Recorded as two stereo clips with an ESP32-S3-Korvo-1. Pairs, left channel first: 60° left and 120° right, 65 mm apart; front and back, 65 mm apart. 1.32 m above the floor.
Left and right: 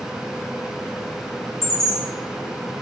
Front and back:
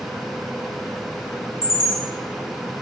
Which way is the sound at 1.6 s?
90° left.